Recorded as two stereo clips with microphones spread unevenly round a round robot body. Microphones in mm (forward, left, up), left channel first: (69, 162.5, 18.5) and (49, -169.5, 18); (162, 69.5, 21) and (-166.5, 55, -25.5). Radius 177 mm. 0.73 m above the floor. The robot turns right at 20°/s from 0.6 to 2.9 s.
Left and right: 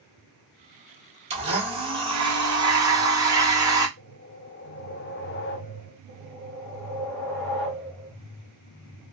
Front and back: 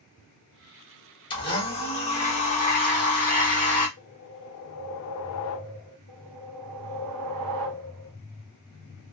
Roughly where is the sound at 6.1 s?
Behind.